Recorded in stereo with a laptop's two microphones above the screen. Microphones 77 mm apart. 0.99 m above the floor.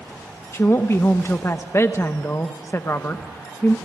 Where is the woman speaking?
35° left (ahead or behind), 0.8 m.